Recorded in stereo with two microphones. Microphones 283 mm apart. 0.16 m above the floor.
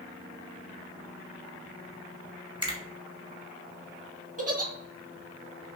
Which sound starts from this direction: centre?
A finger snap, at 2.6 s.